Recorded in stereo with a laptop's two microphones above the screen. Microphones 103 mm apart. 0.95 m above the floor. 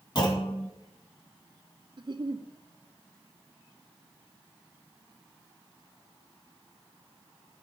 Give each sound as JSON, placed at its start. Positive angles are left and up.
{"t": 0.1, "sound": "a clunk", "side_deg": 40, "distance_m": 2.5}
{"t": 2.0, "sound": "a giggle", "side_deg": -50, "distance_m": 0.6}